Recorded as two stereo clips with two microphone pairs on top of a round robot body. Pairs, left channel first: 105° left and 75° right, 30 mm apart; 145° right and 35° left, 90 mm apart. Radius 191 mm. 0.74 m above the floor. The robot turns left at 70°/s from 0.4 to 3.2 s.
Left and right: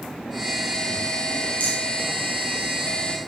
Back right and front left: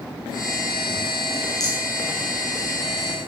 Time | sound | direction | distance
1.6 | a rattle | 60° right | 0.6 m